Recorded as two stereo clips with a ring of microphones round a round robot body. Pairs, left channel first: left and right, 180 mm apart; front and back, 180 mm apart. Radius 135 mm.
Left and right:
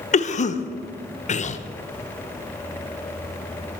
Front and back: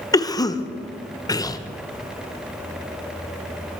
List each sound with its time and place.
0.1 s a cough: 65° left, 0.9 m